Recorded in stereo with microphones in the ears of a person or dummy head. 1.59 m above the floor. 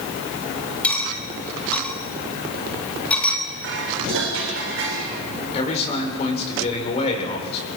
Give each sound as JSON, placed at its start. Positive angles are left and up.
{"t": 0.8, "sound": "cutlery clinking", "side_deg": 10, "distance_m": 1.8}
{"t": 3.6, "sound": "dishes clattering", "side_deg": -70, "distance_m": 4.5}
{"t": 5.5, "sound": "a man speaking", "side_deg": 35, "distance_m": 5.0}